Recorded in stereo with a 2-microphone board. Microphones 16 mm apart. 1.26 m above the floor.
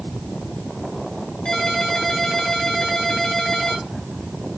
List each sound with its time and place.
1.4 s a ringtone: 50° left (ahead or behind), 3.5 m